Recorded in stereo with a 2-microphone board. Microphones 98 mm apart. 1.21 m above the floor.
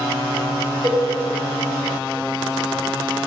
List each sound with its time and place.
0.8 s a cowbell: 45° right (ahead or behind), 2.5 m